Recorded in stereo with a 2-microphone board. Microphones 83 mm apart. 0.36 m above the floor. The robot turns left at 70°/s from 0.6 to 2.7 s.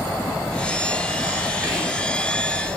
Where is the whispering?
155° right, 1.7 m; by 2.1 s 175° left, 1.7 m.